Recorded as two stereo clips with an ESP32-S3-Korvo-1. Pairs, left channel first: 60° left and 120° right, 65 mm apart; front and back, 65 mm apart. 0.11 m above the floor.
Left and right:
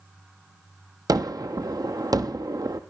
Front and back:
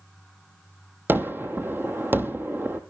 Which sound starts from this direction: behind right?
A gunshot, at 1.1 s.